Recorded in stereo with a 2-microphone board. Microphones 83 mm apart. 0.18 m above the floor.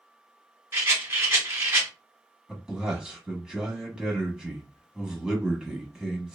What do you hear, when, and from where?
0.7 s a rattle: 30° right (ahead or behind), 1.4 m
2.5 s a man speaking: 10° right (ahead or behind), 1.0 m